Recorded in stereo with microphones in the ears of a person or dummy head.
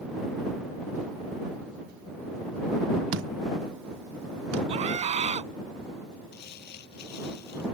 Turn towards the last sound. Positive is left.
turn(degrees=60)  # may be behind; listen again after turning